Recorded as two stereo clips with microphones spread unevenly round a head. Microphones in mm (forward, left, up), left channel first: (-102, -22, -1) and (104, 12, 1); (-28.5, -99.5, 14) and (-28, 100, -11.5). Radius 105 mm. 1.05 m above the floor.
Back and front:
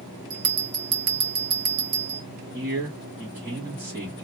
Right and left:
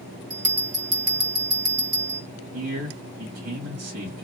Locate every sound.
0.3 s a bell: 35° left, 1.4 m
2.5 s a man speaking: 80° left, 1.4 m